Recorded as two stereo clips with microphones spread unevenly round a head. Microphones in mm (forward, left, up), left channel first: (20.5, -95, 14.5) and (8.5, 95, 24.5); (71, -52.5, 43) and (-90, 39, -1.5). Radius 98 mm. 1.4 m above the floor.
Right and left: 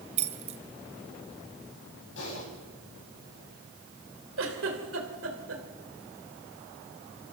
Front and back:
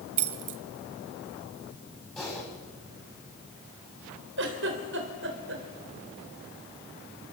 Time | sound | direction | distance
0.2 | keys jangling | 145° left | 0.9 m
2.2 | typing on a keyboard | 115° right | 8 m
4.4 | a giggle | 120° left | 3 m